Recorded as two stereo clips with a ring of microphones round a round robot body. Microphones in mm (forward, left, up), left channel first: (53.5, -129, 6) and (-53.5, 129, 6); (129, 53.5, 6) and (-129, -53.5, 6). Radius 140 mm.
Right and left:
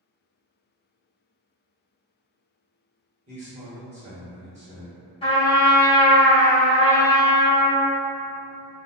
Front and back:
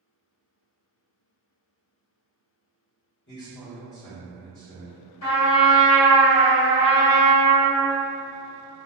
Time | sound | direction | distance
3.3 | a man speaking | 55° left | 1.4 m
5.2 | a trumpet | 5° left | 1.7 m